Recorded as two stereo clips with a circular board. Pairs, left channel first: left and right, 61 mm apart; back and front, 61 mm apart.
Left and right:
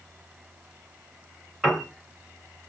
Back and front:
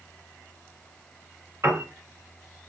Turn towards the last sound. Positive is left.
turn(degrees=-5)